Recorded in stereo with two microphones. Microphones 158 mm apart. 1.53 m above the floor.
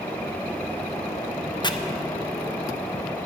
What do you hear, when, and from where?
1.6 s chopping: 30° left (ahead or behind), 0.5 m